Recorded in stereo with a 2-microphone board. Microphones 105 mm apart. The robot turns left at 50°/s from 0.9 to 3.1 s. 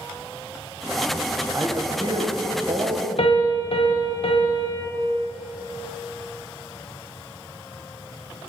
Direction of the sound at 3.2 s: 65° left (ahead or behind).